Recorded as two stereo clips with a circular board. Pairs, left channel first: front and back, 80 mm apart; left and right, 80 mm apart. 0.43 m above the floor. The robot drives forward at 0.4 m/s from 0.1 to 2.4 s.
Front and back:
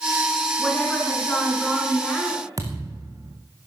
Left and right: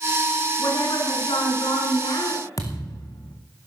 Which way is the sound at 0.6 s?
80° left.